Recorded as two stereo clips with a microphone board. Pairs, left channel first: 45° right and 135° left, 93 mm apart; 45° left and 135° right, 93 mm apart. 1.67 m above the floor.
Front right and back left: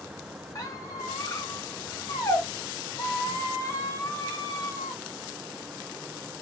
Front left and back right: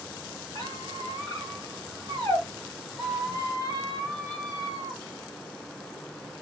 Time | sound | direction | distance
0.6 | a squeak | 5° left | 2.5 m